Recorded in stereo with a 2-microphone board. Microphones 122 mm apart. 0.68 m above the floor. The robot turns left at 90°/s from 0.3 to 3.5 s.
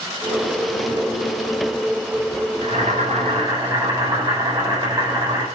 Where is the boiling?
65° right, 3.5 m; by 5.5 s 145° right, 3.5 m.